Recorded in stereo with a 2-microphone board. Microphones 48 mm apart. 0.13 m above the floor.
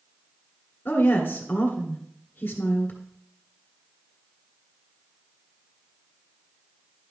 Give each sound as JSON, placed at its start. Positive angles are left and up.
{"t": 0.8, "sound": "a woman speaking", "side_deg": 30, "distance_m": 1.7}